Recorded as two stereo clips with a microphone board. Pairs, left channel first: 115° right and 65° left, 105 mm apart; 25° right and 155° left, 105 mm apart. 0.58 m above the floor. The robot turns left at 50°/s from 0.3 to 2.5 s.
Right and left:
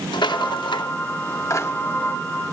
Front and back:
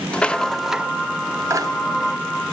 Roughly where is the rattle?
Right.